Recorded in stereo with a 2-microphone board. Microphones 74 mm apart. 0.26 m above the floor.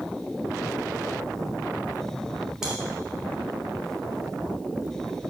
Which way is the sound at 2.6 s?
5° right (ahead or behind).